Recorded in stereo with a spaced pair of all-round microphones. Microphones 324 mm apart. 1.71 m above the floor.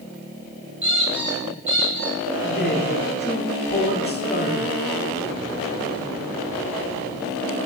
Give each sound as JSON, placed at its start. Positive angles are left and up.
{"t": 0.8, "sound": "a squeak", "side_deg": -60, "distance_m": 3.5}
{"t": 2.4, "sound": "a man speaking", "side_deg": 30, "distance_m": 1.3}